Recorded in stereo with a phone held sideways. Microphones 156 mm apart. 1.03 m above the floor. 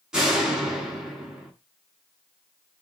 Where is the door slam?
5° right (ahead or behind), 7.5 m.